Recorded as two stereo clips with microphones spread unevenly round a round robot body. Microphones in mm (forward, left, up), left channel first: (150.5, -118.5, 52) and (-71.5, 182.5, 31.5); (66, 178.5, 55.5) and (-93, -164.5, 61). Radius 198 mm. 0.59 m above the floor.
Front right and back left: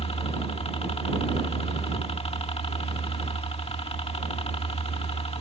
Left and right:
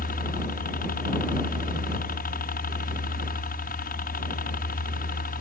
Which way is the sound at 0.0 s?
15° left.